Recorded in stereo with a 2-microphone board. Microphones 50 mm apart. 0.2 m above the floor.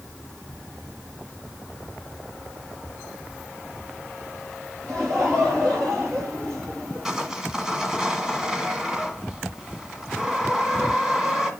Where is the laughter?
75° right (ahead or behind), 4.5 m.